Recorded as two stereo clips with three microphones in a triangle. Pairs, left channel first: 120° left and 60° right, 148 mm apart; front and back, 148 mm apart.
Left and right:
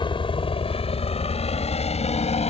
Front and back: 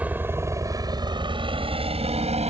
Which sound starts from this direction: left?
A helicopter, at 0.0 s.